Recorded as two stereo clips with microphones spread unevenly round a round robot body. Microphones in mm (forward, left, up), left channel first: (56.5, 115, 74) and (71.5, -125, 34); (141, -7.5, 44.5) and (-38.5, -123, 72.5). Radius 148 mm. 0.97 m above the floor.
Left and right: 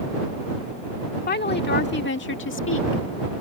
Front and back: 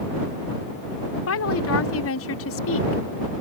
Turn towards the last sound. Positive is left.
turn(degrees=60)